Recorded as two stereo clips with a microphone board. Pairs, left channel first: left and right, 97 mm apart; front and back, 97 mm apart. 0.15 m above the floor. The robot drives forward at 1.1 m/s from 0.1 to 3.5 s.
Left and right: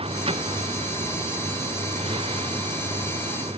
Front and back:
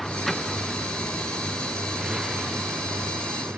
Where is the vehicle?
90° right; by 3.6 s 105° right.